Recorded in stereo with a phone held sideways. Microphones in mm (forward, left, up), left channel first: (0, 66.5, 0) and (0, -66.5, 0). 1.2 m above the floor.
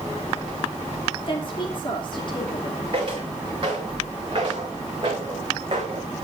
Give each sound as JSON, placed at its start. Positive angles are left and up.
{"t": 1.3, "sound": "a woman speaking", "side_deg": 40, "distance_m": 3.0}
{"t": 2.9, "sound": "footsteps", "side_deg": -40, "distance_m": 6.0}